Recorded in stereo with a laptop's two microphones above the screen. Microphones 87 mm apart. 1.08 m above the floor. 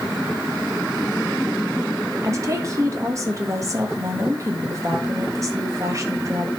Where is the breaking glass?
I don't hear breaking glass.